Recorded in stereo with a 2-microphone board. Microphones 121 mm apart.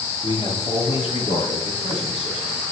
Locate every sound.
0.2 s a man speaking: 40° left (ahead or behind), 1.4 m; by 2.6 s 55° left (ahead or behind), 4 m